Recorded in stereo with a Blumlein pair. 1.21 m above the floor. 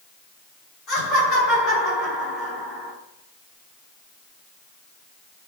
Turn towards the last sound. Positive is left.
turn(degrees=30)